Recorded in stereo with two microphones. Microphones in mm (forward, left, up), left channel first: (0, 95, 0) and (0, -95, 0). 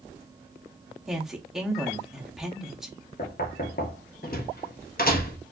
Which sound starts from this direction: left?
Knocking, at 3.2 s.